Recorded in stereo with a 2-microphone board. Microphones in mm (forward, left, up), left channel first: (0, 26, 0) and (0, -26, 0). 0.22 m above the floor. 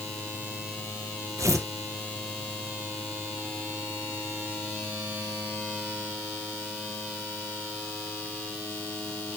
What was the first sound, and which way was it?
Tearing paper, 85° right.